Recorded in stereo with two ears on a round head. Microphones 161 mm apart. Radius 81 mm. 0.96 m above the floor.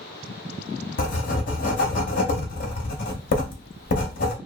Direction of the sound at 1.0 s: 50° left (ahead or behind).